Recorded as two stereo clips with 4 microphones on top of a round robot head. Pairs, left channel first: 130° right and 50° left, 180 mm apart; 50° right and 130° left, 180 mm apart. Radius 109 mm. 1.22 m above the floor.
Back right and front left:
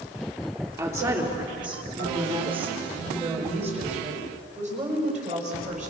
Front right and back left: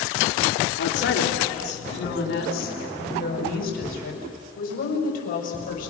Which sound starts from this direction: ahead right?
A woman speaking, at 0.8 s.